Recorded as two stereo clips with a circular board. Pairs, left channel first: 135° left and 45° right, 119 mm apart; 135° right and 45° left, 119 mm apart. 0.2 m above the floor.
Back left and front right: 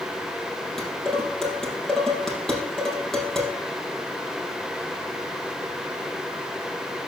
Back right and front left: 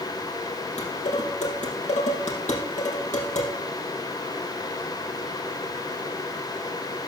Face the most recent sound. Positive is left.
turn(degrees=-140)